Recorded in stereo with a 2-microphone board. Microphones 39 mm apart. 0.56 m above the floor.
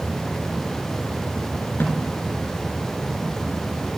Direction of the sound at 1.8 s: 70° left (ahead or behind).